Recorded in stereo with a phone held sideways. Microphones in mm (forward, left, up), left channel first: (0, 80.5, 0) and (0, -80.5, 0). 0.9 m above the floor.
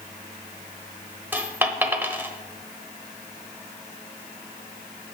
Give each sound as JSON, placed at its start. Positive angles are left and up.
{"t": 1.3, "sound": "a dropped coin", "side_deg": -10, "distance_m": 0.9}